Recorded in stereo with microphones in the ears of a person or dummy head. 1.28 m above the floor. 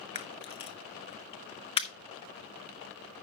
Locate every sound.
0.1 s a camera shutter: 30° left (ahead or behind), 0.8 m